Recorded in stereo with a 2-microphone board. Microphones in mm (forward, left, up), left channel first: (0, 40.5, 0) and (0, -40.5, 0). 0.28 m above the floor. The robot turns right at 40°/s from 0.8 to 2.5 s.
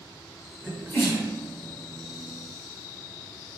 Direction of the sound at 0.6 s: 25° left (ahead or behind).